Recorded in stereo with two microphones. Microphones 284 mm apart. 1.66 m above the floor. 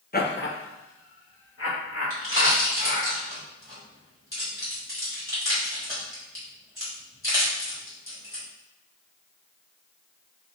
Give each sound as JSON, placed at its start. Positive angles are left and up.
{"t": 0.1, "sound": "laughter", "side_deg": 35, "distance_m": 0.7}
{"t": 2.1, "sound": "a pop", "side_deg": 50, "distance_m": 2.0}